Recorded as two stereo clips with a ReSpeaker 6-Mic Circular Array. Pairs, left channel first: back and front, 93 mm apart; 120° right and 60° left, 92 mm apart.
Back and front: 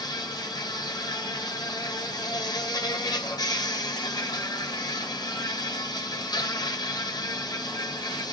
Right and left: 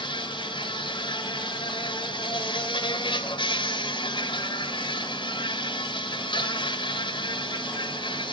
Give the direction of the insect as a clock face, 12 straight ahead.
5 o'clock.